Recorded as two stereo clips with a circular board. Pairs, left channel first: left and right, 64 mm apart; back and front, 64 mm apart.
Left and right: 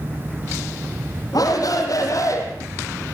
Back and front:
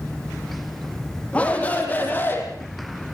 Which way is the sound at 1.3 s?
110° left.